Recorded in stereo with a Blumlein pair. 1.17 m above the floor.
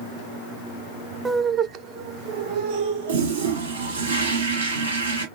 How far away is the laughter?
About 0.5 m.